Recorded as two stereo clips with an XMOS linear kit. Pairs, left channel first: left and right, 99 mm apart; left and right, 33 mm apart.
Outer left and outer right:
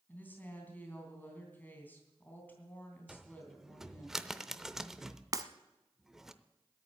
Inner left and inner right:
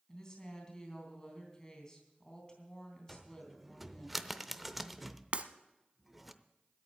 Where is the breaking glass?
40° right (ahead or behind), 0.7 m.